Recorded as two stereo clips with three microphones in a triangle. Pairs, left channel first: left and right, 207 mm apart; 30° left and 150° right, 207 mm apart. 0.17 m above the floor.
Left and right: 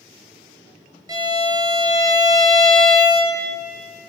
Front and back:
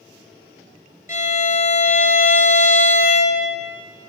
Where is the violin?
20° right, 0.9 m.